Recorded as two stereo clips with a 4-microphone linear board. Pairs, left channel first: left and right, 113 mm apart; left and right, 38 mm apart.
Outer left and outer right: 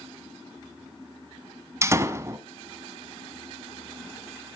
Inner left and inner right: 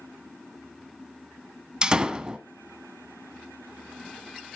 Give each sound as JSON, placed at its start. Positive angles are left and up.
{"t": 1.8, "sound": "a door slam", "side_deg": -25, "distance_m": 1.0}